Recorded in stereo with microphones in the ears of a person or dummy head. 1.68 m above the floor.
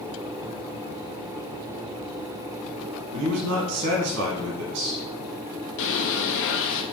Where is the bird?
70° left (ahead or behind), 1.2 m.